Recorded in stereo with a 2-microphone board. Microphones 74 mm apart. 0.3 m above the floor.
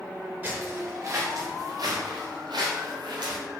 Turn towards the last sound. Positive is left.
turn(degrees=-80)